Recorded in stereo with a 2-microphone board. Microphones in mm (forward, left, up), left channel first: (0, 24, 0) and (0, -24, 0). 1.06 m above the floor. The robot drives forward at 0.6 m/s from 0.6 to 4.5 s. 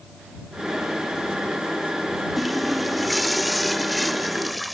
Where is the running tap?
Centre (ahead or behind).